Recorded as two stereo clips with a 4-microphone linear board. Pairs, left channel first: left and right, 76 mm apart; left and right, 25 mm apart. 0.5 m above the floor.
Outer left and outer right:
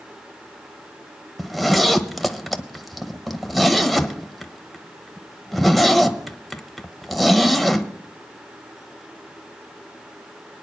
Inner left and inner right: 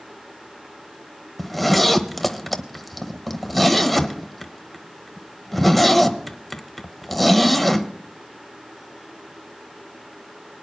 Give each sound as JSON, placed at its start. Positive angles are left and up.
{"t": 1.4, "sound": "a zipper", "side_deg": 0, "distance_m": 0.8}